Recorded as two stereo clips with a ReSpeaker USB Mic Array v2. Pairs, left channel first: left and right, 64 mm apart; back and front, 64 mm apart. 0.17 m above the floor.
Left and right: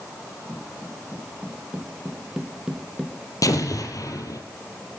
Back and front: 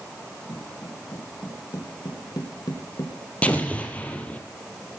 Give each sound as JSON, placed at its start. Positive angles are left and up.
{"t": 0.5, "sound": "footsteps", "azimuth_deg": -155, "distance_m": 4.5}
{"t": 3.4, "sound": "an explosion", "azimuth_deg": 110, "distance_m": 3.5}